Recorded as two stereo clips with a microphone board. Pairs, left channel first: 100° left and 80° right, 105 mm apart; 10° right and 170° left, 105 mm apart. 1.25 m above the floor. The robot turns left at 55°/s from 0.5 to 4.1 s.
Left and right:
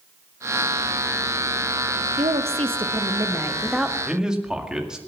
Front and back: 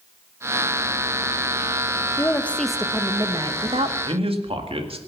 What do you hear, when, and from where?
2.2 s a woman speaking: 75° right, 1.2 m; by 4.0 s 170° right, 1.2 m
4.0 s a man speaking: 160° right, 1.9 m; by 5.0 s 165° right, 1.9 m